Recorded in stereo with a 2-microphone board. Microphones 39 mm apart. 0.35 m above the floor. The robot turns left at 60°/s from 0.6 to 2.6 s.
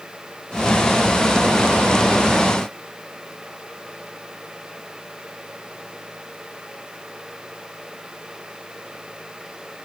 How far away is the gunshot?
I don't hear a gunshot.